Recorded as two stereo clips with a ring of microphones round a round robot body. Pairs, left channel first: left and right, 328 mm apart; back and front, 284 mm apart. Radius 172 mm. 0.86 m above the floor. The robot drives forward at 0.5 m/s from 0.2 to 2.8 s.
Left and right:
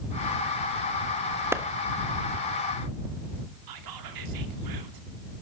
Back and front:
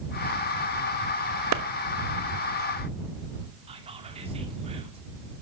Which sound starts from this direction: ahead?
A clap, at 1.5 s.